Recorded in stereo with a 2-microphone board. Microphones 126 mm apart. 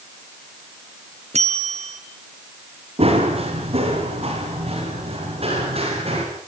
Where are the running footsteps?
50° right (ahead or behind), 7 m.